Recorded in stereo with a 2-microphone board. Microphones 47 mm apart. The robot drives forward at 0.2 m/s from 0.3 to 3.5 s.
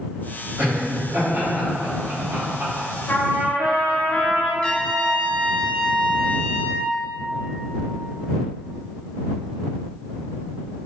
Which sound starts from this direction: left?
A trumpet, at 3.1 s.